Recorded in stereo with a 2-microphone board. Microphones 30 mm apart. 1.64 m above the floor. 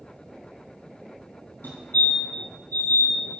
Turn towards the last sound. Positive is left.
turn(degrees=80)